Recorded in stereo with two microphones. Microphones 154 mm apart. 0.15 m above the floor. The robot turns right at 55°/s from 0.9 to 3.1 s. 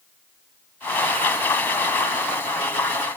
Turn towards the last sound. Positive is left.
No sound to turn to.